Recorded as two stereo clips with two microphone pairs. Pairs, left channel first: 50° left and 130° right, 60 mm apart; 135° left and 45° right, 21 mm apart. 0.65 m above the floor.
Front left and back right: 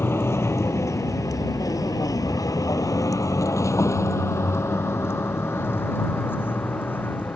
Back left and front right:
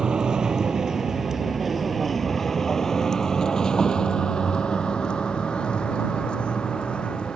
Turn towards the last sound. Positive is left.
turn(degrees=105)